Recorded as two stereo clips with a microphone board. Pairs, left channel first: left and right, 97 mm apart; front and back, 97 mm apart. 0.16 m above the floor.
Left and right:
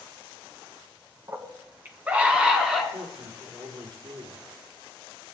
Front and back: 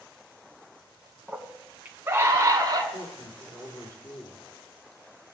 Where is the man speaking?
50° right, 4 m.